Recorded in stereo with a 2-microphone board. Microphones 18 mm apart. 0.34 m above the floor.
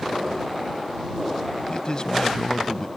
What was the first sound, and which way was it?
A man speaking, 40° left (ahead or behind).